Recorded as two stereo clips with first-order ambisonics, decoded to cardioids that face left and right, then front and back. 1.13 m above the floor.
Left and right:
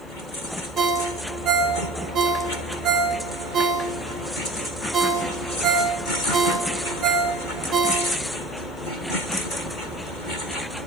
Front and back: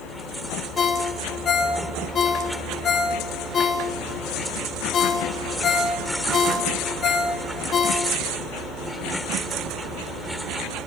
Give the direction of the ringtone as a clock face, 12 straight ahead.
2 o'clock.